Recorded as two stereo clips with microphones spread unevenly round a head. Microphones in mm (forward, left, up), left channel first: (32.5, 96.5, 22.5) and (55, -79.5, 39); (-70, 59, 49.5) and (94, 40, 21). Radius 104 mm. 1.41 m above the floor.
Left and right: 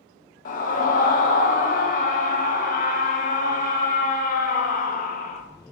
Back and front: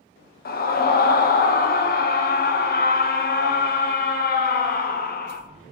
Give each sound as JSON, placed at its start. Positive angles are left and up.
{"t": 0.5, "sound": "a scream", "azimuth_deg": 140, "distance_m": 0.9}